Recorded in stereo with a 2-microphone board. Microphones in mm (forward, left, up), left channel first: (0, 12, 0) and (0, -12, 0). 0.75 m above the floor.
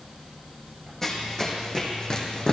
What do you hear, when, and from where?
1.0 s running footsteps: 20° left (ahead or behind), 2.5 m; by 2.5 s 45° left (ahead or behind), 2 m